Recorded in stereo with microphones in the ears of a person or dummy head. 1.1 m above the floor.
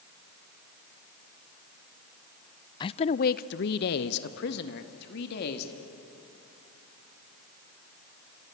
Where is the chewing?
No chewing in this recording.